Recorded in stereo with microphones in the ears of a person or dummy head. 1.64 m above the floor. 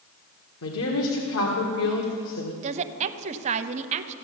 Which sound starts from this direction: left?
A woman speaking, at 0.6 s.